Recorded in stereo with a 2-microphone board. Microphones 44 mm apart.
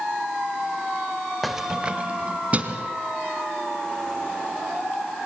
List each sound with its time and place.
1.4 s keys jangling: centre (ahead or behind), 0.6 m; by 2.9 s 30° right (ahead or behind), 2.5 m